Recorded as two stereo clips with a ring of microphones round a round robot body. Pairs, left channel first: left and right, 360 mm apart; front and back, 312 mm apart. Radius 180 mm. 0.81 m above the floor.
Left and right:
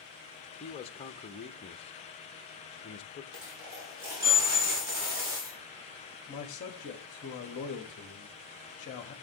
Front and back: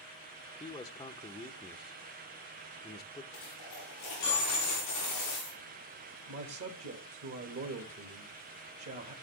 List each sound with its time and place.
0.6 s a man speaking: 50° left, 0.8 m
3.3 s a dropped coin: 50° right, 9 m
6.3 s a man speaking: 155° left, 1.6 m